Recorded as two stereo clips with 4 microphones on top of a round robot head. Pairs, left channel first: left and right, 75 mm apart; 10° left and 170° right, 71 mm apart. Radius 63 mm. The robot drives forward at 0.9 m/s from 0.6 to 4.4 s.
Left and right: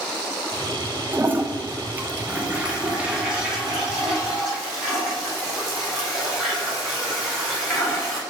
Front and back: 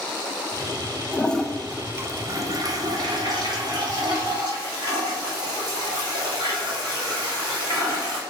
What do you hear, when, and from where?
1.1 s a toilet flushing: 40° right, 0.8 m; by 8.2 s 175° right, 2.5 m